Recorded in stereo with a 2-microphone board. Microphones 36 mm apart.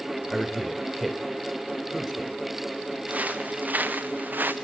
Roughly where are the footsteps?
Right.